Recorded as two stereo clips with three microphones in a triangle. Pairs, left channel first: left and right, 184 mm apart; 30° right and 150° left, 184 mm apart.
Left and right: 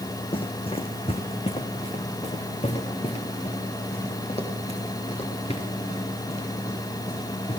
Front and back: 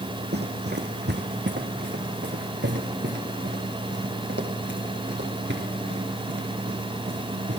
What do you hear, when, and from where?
0.3 s running footsteps: 145° left, 2.0 m